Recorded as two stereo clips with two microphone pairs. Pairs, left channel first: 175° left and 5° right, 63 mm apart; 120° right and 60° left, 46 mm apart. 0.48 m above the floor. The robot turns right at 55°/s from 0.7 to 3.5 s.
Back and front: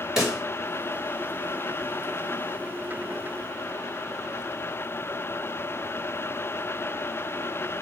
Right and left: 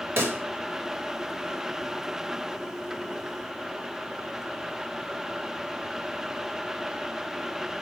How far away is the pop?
About 1.7 m.